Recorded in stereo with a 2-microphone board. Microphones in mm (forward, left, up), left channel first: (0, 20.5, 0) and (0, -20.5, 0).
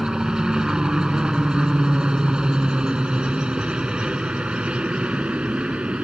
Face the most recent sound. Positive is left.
turn(degrees=-35)  # may be behind; listen again after turning